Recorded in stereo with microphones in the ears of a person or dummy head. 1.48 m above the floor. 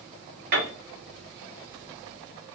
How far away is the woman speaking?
I don't hear a woman speaking.